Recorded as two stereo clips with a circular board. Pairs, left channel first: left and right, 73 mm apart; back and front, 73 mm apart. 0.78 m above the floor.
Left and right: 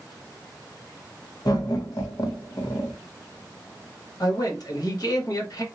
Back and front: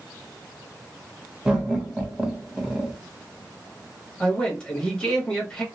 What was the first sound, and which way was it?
Laughter, 80° left.